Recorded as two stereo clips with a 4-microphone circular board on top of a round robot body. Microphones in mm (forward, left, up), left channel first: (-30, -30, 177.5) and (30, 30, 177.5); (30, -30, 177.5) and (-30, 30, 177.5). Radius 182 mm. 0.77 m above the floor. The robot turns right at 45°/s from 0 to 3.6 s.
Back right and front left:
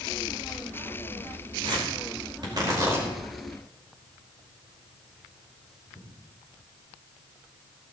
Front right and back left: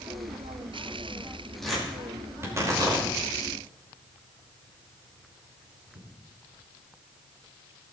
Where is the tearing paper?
40° left, 5 m; by 6.1 s 130° left, 5 m.